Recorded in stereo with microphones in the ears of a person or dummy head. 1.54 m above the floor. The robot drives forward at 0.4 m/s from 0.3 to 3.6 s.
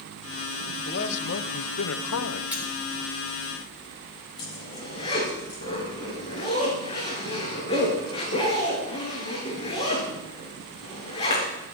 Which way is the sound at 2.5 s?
10° right (ahead or behind).